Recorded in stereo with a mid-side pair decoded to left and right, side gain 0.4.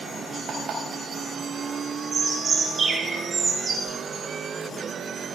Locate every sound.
0.5 s an alarm clock: 65° right, 3.5 m
2.1 s a bird: 45° right, 2 m
3.9 s a whoosh: 25° left, 3.5 m